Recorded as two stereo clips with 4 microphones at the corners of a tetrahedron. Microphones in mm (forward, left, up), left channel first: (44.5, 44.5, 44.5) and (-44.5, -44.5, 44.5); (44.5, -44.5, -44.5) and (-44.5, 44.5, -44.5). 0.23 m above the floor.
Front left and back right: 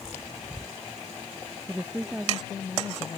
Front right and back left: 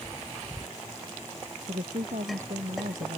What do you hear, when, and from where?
1.7 s a woman speaking: 150° left; by 3.2 s 130° left